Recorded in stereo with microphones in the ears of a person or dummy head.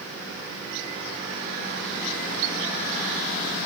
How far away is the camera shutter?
I don't hear a camera shutter.